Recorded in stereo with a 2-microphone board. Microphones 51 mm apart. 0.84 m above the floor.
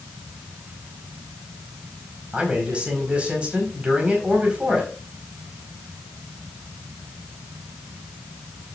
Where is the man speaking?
25° right (ahead or behind), 4.5 m.